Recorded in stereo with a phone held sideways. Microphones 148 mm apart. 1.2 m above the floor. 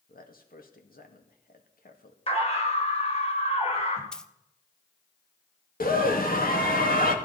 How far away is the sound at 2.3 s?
About 4 m.